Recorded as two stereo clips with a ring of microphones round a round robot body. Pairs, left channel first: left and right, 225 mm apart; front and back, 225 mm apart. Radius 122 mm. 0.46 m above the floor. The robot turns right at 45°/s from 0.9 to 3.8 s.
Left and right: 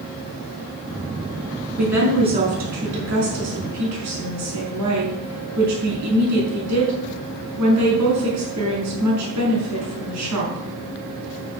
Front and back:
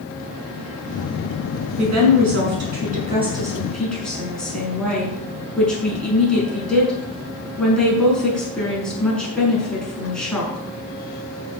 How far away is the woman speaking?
About 6 m.